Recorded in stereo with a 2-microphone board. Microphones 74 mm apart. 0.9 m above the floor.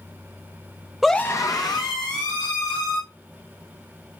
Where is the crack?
No crack in this recording.